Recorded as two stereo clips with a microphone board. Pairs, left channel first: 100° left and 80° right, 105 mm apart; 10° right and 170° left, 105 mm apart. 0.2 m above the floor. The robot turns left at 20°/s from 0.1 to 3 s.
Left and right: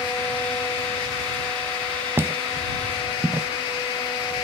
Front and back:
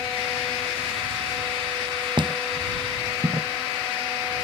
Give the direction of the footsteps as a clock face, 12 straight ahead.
5 o'clock.